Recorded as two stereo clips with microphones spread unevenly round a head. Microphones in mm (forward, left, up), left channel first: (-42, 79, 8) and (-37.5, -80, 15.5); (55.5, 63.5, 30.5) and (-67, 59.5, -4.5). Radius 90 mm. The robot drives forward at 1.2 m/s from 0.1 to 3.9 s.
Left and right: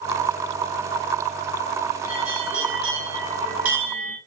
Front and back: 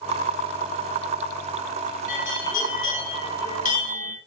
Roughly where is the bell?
Ahead.